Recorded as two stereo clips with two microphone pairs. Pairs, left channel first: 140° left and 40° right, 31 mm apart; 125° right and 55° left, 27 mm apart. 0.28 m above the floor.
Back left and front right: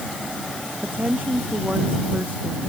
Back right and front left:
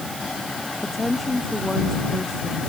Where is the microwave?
I don't hear a microwave.